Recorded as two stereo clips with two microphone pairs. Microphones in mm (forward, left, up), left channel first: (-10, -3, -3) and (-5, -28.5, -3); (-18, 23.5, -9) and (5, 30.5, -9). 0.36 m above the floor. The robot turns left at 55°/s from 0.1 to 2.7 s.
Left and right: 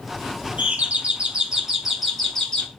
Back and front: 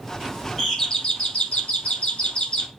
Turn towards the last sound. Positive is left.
turn(degrees=155)